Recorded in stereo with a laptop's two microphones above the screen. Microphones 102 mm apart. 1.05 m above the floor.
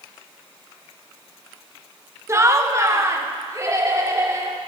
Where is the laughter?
25° right (ahead or behind), 1.0 m; by 4.6 s 30° right (ahead or behind), 3 m.